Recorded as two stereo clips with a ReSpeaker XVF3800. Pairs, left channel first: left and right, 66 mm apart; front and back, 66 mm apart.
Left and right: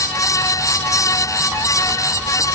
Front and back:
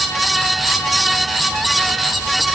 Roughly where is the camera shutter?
I don't hear a camera shutter.